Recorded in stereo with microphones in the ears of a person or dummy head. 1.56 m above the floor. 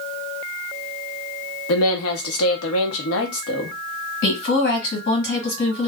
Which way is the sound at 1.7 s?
75° left (ahead or behind).